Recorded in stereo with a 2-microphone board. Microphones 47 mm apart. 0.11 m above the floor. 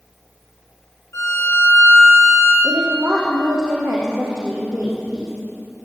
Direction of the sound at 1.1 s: 75° left (ahead or behind).